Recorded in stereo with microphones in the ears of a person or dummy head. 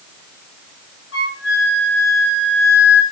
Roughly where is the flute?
Left.